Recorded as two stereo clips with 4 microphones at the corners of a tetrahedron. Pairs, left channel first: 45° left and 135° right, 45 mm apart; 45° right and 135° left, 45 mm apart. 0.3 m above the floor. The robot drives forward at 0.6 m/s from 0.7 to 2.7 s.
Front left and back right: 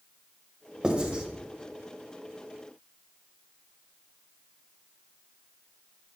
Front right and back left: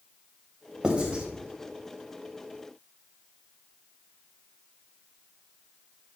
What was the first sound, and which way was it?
Writing, straight behind.